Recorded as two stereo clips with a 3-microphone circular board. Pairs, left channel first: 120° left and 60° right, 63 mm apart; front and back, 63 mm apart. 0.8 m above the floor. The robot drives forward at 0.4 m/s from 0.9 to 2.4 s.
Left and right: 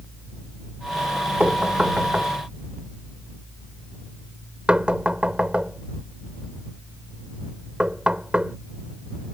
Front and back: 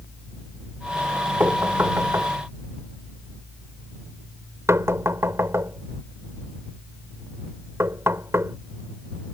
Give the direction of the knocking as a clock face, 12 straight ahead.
4 o'clock.